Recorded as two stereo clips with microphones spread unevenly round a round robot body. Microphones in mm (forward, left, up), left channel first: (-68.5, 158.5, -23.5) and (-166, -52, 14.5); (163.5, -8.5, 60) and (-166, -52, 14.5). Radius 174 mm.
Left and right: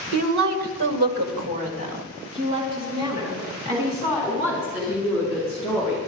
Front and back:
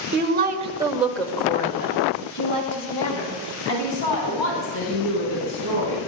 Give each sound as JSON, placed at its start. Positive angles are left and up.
{"t": 0.1, "sound": "a woman speaking", "azimuth_deg": -115, "distance_m": 3.0}